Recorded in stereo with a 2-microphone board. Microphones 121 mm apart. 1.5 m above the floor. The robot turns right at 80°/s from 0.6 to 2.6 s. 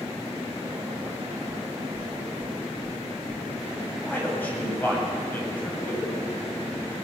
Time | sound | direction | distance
1.5 | knocking | 75° right (ahead or behind) | 2.5 m
4.0 | a man speaking | 15° left (ahead or behind) | 8 m